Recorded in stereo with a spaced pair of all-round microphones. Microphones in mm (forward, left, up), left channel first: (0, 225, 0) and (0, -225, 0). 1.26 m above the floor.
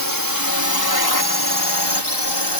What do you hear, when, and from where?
0.0 s a drone: 45° left (ahead or behind); by 2.6 s 60° left (ahead or behind)